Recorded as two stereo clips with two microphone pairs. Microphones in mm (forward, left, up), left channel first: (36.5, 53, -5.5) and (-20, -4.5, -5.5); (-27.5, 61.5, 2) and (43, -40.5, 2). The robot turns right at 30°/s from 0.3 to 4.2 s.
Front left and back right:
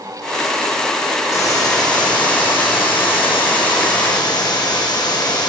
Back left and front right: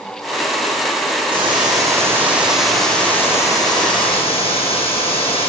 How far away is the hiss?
About 6.5 m.